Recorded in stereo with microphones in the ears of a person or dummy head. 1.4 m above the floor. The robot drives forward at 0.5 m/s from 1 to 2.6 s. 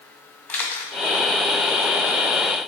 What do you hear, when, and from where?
0.5 s a camera shutter: 10° left (ahead or behind), 1.1 m